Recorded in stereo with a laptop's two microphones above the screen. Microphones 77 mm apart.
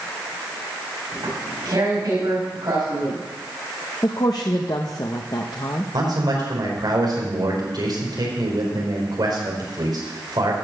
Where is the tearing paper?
60° right (ahead or behind), 5 m.